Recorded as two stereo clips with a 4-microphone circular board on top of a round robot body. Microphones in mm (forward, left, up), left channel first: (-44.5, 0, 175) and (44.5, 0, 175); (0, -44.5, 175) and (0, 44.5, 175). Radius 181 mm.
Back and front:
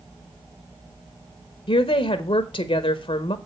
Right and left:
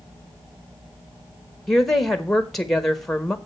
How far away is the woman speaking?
About 1.3 m.